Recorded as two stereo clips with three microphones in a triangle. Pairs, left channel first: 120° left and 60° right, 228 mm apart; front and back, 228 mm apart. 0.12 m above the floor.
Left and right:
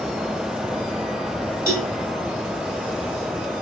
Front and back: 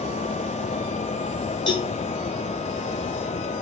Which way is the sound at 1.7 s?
70° left.